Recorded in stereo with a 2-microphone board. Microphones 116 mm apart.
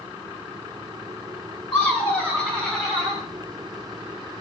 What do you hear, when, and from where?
1.7 s laughter: 15° left (ahead or behind), 1.2 m; by 3.2 s centre (ahead or behind), 1.2 m